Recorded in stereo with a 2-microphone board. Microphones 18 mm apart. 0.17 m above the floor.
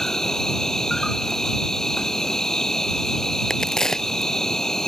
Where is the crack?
30° left (ahead or behind).